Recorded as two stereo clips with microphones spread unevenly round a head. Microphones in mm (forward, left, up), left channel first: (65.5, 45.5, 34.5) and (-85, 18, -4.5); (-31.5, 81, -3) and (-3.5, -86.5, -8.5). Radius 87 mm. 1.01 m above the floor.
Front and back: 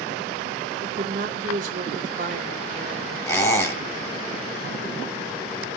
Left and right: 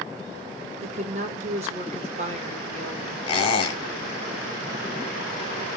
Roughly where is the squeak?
Ahead left.